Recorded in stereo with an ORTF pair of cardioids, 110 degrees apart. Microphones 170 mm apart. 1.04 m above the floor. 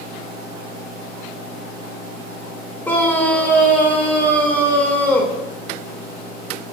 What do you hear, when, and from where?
0.0 s a fan: 60° left, 4.5 m
2.9 s a scream: 10° left, 3.5 m